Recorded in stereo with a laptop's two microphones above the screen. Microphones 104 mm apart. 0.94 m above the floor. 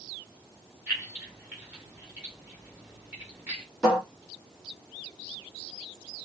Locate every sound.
0.9 s keys jangling: 15° right (ahead or behind), 1.9 m
3.8 s a cupboard door: centre (ahead or behind), 1.9 m